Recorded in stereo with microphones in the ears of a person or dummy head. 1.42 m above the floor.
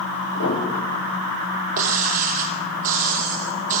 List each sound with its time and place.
0.3 s a piano: 80° left, 5.5 m
1.8 s breaking glass: 55° right (ahead or behind), 4 m